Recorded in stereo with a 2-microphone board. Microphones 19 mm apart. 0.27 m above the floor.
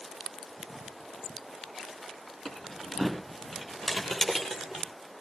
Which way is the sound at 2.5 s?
20° left (ahead or behind).